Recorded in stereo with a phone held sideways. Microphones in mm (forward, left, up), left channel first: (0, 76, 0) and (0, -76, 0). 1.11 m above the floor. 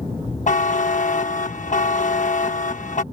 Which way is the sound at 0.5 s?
55° left (ahead or behind).